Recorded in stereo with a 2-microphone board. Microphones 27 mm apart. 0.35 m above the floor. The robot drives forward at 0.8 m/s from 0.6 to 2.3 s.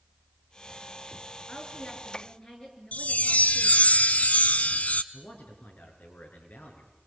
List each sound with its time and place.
1.5 s a woman speaking: 30° left (ahead or behind), 6 m
2.9 s a chime: 65° left (ahead or behind), 0.9 m
5.1 s a man speaking: 75° left (ahead or behind), 6.5 m